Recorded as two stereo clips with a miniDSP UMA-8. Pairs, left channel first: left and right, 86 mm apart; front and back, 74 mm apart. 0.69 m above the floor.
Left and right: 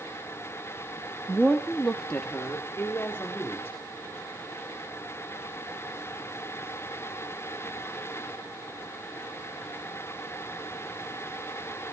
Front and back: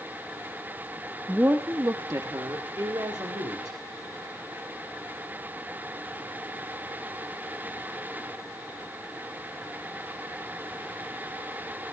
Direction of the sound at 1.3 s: 165° right.